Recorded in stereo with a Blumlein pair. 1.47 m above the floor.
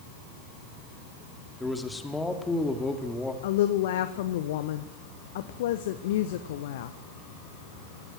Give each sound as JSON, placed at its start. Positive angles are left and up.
{"t": 1.6, "sound": "a man speaking", "azimuth_deg": 10, "distance_m": 3.0}
{"t": 3.4, "sound": "a woman speaking", "azimuth_deg": 55, "distance_m": 1.3}